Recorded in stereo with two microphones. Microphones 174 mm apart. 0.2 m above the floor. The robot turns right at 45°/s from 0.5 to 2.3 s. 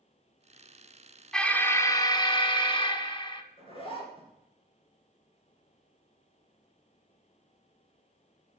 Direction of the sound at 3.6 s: 30° left (ahead or behind).